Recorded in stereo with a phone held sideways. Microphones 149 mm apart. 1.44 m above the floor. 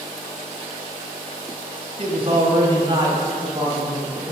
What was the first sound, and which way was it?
A man speaking, 45° right (ahead or behind).